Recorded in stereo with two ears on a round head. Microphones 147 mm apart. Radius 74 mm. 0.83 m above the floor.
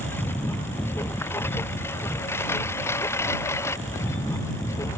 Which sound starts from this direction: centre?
A lawn mower, at 0.0 s.